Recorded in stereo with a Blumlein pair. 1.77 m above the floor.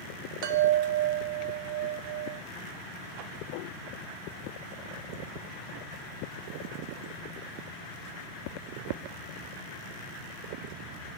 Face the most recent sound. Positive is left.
turn(degrees=-45)